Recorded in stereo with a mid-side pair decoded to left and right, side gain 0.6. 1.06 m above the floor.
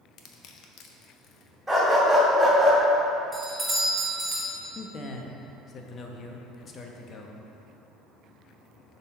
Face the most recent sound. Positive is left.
turn(degrees=40)